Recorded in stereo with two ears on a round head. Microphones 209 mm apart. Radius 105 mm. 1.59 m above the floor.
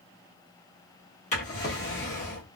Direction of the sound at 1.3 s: 30° left (ahead or behind).